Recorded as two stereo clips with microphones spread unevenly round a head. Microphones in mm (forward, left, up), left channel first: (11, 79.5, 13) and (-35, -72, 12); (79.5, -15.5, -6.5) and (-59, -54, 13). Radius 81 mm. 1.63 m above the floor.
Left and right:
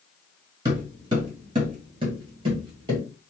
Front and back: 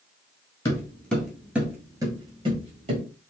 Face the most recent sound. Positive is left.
turn(degrees=-165)